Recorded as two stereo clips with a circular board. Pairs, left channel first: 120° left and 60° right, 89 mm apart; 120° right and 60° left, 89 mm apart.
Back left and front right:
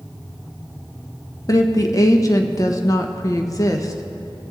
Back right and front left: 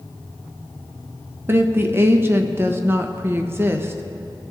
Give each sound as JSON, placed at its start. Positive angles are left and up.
{"t": 1.5, "sound": "a woman speaking", "azimuth_deg": 105, "distance_m": 0.7}